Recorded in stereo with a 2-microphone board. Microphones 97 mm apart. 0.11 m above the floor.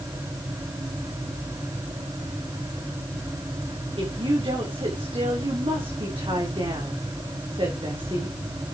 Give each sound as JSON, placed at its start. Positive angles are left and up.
{"t": 4.0, "sound": "a woman speaking", "side_deg": -60, "distance_m": 7.0}